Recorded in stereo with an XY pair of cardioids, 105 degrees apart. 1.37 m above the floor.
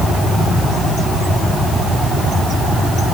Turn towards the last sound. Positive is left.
No sound to turn to.